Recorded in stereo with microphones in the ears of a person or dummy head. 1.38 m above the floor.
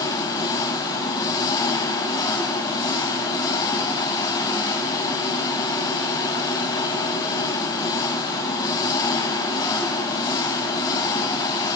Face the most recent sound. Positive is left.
turn(degrees=25)  # may be behind; listen again after turning